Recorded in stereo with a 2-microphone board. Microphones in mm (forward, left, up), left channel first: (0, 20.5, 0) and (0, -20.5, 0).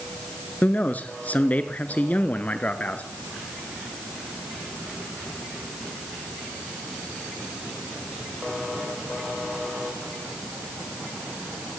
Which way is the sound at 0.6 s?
40° left (ahead or behind).